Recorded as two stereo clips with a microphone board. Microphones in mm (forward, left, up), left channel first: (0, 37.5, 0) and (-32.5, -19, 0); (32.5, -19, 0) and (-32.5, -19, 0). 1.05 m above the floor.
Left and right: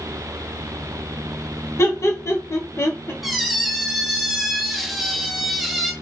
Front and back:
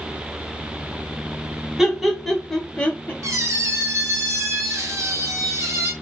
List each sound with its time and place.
1.8 s laughter: 95° left, 1.1 m; by 3.1 s 40° left, 0.7 m
3.2 s a squeak: 155° left, 0.6 m